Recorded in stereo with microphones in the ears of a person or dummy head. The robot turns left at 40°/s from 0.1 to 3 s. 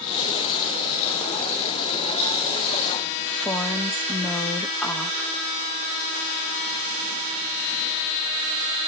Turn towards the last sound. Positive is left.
turn(degrees=10)  # may be behind; listen again after turning